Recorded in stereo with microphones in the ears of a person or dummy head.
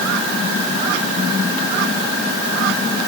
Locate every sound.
Only background noise.